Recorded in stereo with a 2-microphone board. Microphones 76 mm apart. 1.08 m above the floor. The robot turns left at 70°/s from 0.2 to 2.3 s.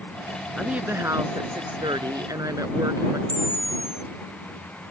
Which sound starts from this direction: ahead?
A woman speaking, at 0.6 s.